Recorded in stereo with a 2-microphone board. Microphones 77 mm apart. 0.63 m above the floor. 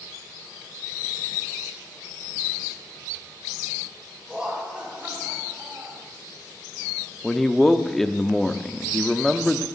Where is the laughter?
10° right (ahead or behind), 4.5 m; by 6.0 s 30° right (ahead or behind), 3 m.